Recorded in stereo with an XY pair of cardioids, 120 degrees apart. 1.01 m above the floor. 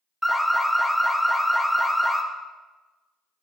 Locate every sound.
0.2 s an alarm: straight ahead, 0.6 m